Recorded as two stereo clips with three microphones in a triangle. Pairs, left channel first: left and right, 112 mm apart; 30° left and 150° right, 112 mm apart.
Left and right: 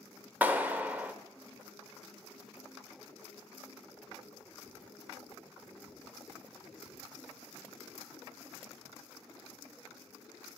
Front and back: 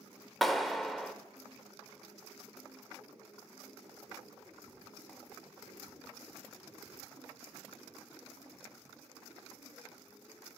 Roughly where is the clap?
Ahead right.